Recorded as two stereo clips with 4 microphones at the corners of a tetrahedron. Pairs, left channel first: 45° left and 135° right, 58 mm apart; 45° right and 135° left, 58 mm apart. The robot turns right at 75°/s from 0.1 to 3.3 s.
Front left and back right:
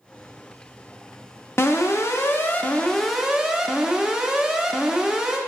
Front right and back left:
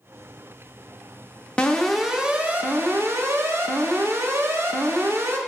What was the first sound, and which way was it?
An alarm, 20° left.